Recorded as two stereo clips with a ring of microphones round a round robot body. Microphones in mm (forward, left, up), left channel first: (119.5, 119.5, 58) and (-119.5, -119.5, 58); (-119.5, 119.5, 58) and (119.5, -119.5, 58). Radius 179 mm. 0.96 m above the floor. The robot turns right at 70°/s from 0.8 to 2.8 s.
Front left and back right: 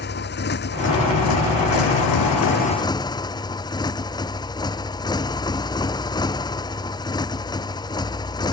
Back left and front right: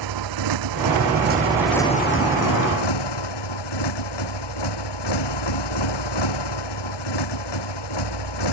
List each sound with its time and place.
0.0 s a motorcycle: 15° right; by 8.5 s 125° left